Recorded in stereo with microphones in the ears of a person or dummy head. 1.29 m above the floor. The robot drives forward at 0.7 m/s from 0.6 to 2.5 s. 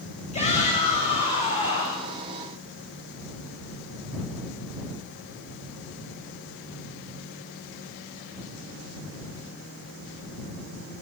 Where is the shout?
30° left (ahead or behind), 8 m.